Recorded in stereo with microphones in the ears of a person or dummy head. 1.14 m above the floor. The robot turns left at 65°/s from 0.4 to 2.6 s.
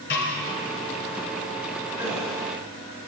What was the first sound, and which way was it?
A snare drum, 50° left (ahead or behind).